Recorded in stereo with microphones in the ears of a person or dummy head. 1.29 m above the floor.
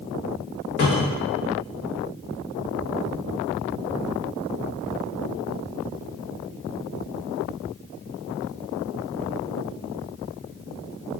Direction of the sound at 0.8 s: 40° left (ahead or behind).